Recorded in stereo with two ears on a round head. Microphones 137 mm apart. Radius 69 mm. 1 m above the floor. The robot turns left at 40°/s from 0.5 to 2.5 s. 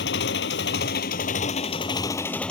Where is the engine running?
85° left; by 2.5 s 5° left.